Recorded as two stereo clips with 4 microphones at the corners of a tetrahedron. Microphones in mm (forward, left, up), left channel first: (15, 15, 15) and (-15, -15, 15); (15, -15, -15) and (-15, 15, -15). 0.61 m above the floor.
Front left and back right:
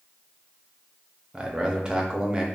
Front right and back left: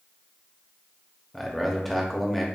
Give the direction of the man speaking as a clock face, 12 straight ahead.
4 o'clock.